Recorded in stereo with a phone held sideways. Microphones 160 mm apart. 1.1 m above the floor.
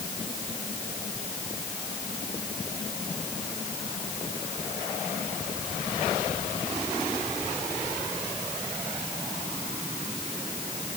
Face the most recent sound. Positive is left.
No sound to turn to.